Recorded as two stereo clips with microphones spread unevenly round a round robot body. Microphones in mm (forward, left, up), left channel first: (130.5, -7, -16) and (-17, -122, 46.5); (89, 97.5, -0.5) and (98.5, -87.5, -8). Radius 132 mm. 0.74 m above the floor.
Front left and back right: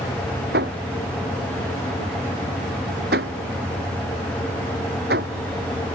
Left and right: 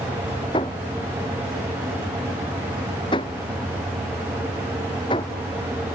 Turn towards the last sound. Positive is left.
turn(degrees=165)